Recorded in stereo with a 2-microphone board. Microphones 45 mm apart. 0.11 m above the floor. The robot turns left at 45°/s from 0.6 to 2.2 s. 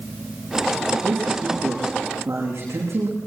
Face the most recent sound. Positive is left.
turn(degrees=-105)